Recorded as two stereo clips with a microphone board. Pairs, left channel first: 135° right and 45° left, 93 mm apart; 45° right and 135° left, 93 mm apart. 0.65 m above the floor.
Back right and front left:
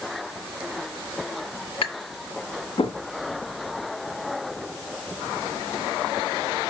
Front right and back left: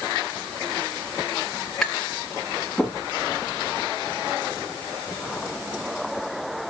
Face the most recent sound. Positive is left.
turn(degrees=-130)